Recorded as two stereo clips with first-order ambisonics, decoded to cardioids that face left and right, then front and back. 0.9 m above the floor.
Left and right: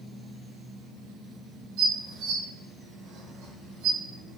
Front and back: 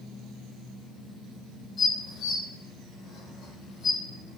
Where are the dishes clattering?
65° right, 0.9 m.